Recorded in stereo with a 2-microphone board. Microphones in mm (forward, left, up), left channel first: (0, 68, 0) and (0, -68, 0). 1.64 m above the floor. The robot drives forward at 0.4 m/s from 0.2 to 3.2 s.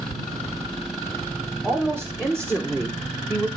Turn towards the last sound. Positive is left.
turn(degrees=10)  # may be behind; listen again after turning